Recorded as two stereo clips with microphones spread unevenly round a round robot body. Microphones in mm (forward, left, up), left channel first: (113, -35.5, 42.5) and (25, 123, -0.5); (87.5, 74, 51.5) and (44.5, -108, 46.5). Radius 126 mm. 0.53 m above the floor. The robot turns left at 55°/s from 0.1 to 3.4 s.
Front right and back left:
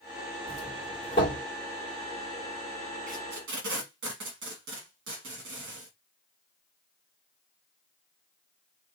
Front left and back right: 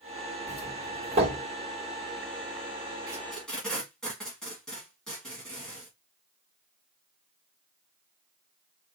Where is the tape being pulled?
175° right, 1.0 m; by 5.9 s 165° left, 1.0 m.